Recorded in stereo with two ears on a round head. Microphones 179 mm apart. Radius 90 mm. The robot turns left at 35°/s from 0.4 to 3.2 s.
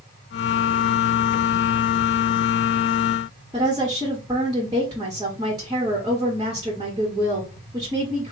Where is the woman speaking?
20° right (ahead or behind), 1.3 m.